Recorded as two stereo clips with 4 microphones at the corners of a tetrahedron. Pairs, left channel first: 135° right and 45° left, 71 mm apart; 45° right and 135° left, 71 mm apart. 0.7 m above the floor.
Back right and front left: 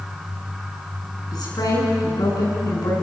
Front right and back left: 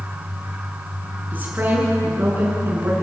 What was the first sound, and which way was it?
A woman speaking, 160° right.